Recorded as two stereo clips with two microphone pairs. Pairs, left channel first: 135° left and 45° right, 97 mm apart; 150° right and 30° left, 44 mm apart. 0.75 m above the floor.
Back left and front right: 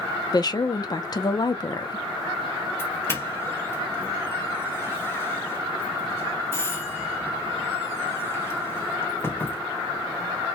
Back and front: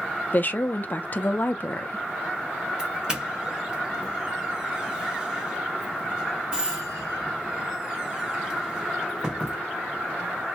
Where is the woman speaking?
175° left, 0.7 m.